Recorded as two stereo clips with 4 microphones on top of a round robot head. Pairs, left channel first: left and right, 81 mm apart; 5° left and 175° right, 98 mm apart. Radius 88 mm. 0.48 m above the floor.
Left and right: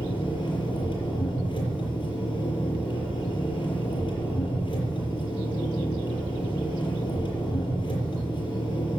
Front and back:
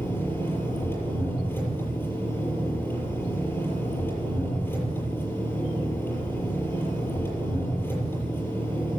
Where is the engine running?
70° left, 6.5 m.